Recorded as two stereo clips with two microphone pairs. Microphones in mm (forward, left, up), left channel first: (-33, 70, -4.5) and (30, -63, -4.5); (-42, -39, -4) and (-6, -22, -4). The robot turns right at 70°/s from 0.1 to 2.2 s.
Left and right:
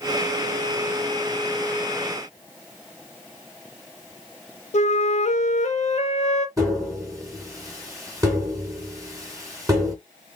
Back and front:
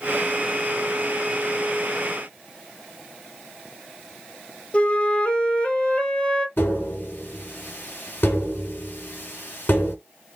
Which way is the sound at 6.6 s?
130° right.